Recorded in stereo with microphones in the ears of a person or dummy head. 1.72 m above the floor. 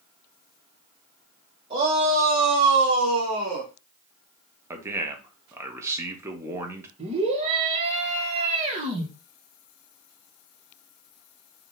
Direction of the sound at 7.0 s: 40° right (ahead or behind).